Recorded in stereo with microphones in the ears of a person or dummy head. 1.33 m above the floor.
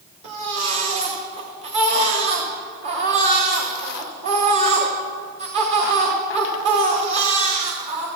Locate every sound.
0.2 s a baby crying: 45° right (ahead or behind), 1.7 m